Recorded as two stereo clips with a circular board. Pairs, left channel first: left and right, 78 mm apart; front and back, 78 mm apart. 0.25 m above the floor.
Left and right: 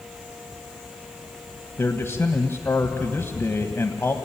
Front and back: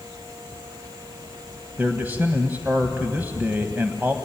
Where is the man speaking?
130° left, 1.3 m.